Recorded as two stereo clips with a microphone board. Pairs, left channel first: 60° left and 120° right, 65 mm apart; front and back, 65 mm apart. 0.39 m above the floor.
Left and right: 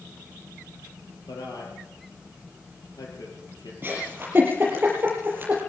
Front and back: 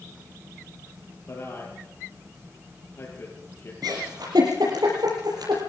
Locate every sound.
1.3 s a man speaking: 50° left, 9.5 m
3.8 s a giggle: straight behind, 7 m